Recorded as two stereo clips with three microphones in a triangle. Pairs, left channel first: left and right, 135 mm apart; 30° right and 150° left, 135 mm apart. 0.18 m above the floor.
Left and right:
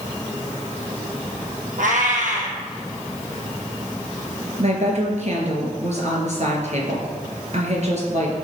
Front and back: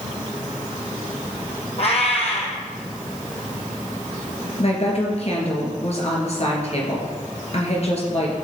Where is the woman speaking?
65° right, 3 m.